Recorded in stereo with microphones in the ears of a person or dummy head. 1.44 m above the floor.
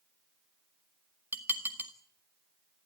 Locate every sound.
1.3 s dishes clattering: 20° right (ahead or behind), 1.7 m